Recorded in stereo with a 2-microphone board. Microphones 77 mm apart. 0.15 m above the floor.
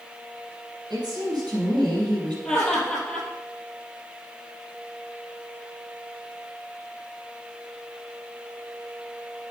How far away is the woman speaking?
About 4 m.